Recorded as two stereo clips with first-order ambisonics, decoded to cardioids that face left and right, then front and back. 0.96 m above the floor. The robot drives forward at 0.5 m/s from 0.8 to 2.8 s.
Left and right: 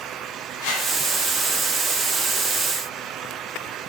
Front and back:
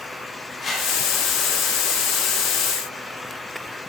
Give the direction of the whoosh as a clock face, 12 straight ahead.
10 o'clock.